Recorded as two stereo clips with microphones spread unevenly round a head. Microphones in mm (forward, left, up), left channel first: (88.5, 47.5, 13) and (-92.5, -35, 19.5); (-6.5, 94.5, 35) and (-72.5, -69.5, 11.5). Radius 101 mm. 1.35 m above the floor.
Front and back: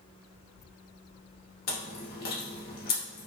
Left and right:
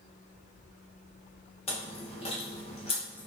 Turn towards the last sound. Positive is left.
turn(degrees=40)